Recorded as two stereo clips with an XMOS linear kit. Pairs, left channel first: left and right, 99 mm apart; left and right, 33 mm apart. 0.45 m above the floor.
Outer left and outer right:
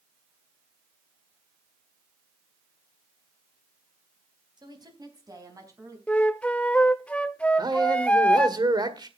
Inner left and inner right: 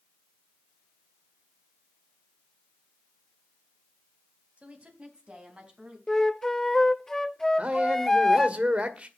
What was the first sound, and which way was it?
A woman speaking, 45° right (ahead or behind).